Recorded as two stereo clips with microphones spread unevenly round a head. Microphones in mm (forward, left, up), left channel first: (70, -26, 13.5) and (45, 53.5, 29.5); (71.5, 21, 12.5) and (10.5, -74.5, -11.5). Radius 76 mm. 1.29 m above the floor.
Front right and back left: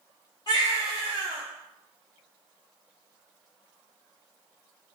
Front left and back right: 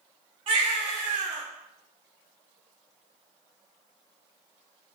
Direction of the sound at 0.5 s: 115° right.